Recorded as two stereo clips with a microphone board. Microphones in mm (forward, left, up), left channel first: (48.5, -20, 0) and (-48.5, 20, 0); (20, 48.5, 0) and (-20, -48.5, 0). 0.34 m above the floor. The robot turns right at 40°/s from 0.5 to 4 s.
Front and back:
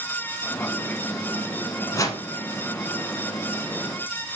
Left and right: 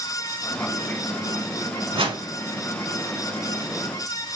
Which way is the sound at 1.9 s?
85° right.